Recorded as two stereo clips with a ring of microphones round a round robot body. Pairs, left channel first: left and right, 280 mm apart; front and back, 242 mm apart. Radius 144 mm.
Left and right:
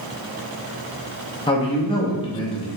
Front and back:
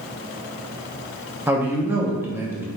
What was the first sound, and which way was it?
A man speaking, 115° left.